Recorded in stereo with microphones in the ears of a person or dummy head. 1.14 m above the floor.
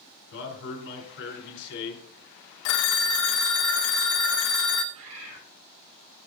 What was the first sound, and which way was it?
A man speaking, 65° left (ahead or behind).